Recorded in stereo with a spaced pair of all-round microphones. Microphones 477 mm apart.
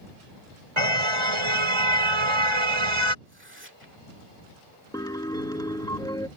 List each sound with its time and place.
0.8 s a car horn: 80° right
3.2 s tearing paper: 25° right (ahead or behind)
4.9 s a piano: 10° left (ahead or behind)